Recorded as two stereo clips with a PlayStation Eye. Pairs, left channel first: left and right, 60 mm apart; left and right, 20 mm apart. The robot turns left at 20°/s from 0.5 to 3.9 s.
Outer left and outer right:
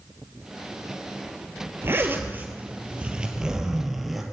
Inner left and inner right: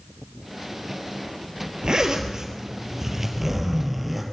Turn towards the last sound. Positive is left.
turn(degrees=-175)